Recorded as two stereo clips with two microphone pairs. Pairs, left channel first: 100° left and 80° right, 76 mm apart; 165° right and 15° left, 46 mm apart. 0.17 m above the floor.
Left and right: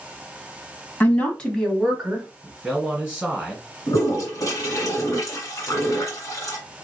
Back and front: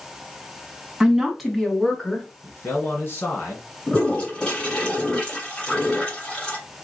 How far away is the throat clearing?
I don't hear throat clearing.